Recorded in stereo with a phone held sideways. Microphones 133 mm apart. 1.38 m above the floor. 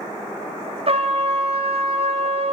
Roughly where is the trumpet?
Right.